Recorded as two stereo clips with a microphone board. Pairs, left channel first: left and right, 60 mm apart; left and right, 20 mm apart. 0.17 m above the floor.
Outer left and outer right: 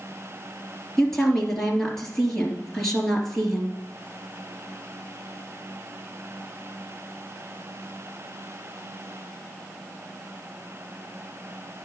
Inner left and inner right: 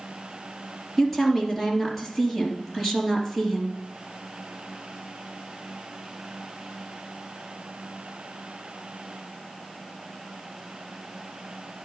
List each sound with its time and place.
1.0 s a woman speaking: 10° left (ahead or behind), 2.5 m